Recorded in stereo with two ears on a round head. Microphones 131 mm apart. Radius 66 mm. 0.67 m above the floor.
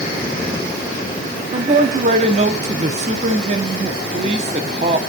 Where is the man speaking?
45° right (ahead or behind), 1.3 m.